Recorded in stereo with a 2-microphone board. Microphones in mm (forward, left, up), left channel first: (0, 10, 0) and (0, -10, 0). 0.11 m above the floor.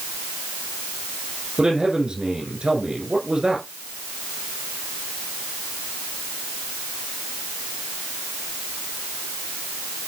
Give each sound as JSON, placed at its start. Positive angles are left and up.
{"t": 1.6, "sound": "a man speaking", "side_deg": -45, "distance_m": 5.5}